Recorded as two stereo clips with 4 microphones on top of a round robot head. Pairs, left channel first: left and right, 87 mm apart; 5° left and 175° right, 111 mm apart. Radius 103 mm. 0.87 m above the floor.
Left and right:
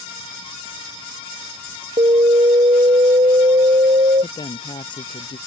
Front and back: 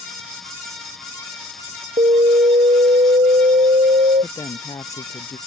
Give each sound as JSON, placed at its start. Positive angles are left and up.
{"t": 2.0, "sound": "an alarm", "azimuth_deg": -130}
{"t": 4.2, "sound": "a woman speaking", "azimuth_deg": 65}